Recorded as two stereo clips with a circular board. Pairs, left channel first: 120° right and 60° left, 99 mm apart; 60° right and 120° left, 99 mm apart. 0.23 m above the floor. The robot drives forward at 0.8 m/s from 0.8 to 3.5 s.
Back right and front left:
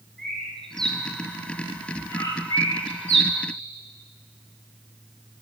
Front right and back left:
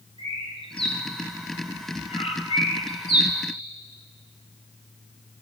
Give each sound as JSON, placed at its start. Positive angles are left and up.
{"t": 0.2, "sound": "a bird", "azimuth_deg": -35, "distance_m": 2.0}